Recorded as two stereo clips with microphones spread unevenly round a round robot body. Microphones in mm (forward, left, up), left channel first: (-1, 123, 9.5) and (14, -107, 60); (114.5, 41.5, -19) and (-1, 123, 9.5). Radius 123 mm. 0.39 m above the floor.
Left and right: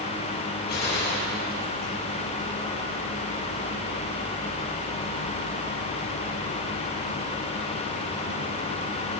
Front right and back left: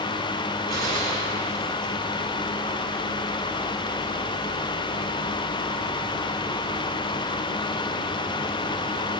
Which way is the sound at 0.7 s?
140° left.